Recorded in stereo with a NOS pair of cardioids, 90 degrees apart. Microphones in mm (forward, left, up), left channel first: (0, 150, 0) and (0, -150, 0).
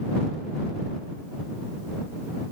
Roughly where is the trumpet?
I don't hear a trumpet.